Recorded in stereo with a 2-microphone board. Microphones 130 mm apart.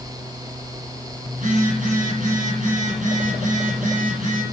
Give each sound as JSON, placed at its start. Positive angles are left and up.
{"t": 1.3, "sound": "a phone buzzing", "side_deg": -70, "distance_m": 8.0}